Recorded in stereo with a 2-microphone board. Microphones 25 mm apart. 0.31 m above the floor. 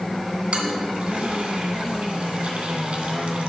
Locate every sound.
0.5 s a toilet flushing: 55° right (ahead or behind), 2.5 m